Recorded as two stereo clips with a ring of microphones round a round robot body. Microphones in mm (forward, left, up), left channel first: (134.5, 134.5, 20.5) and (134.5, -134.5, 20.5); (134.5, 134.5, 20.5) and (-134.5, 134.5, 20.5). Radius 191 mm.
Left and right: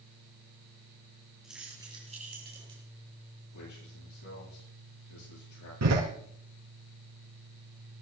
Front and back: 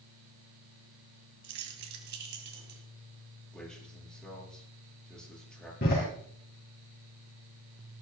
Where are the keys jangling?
Straight behind, 2 m; by 2.8 s 140° right, 1.9 m.